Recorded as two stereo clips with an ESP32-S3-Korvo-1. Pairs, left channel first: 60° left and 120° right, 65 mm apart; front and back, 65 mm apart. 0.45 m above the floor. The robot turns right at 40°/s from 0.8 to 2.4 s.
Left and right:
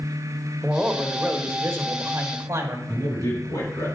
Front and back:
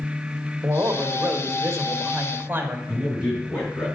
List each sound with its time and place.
0.6 s a man speaking: 165° left, 1.3 m; by 2.8 s 130° right, 1.3 m
2.9 s a man speaking: 55° left, 4.5 m